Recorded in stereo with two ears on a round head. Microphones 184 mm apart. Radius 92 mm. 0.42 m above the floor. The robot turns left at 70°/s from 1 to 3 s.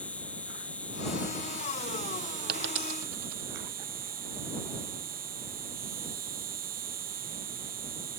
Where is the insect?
5° left; by 8.2 s 135° right.